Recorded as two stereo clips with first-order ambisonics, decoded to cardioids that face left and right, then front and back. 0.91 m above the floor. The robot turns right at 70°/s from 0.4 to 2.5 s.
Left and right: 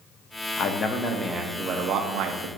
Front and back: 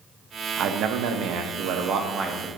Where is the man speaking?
130° left, 0.5 m; by 2.5 s 95° right, 0.5 m.